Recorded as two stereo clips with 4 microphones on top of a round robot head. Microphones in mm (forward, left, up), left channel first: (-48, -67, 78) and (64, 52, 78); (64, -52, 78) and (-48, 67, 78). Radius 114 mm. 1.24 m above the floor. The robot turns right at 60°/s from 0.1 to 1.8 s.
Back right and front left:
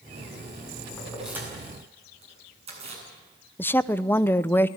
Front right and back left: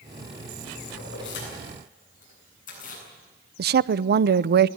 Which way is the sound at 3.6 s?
150° left.